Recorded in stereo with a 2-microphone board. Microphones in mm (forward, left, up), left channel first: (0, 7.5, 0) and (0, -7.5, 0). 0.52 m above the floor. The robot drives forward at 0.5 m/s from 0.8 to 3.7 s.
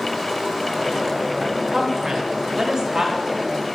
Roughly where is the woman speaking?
Right.